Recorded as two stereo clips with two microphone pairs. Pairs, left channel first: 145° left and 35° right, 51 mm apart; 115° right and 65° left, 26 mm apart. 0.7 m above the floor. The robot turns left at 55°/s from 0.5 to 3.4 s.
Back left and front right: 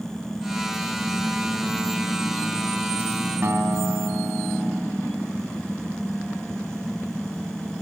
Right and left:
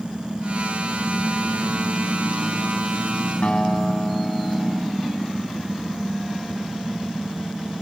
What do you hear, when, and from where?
3.4 s a guitar: 70° right, 2.5 m